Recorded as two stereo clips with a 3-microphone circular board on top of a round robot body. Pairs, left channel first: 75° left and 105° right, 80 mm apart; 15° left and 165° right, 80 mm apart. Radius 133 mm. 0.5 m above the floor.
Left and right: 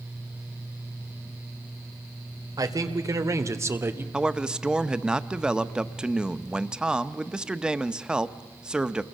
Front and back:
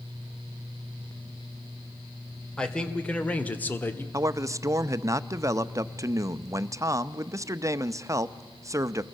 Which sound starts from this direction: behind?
A man speaking, at 4.1 s.